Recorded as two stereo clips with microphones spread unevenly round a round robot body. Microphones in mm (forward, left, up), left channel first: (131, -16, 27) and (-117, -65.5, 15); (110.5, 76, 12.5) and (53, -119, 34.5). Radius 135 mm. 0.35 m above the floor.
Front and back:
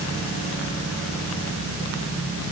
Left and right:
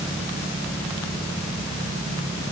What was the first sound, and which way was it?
Only background noise.